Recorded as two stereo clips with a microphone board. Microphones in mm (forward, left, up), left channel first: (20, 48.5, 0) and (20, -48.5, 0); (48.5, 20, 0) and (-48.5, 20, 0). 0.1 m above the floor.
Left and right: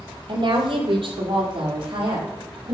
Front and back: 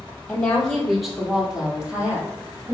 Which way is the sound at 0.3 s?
75° right.